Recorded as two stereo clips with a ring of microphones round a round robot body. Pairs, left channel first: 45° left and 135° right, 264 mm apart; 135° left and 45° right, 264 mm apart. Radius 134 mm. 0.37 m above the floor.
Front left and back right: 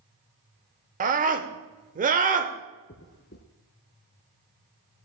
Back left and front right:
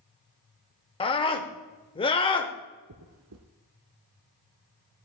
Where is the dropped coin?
10° right, 0.9 m.